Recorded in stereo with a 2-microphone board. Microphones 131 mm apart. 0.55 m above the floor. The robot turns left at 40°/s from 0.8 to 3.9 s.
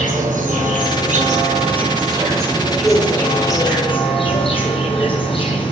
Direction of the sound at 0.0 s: 95° right.